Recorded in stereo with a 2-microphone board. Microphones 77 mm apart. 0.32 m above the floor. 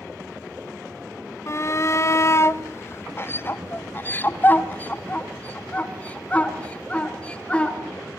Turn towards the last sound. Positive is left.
turn(degrees=15)  # may be behind; listen again after turning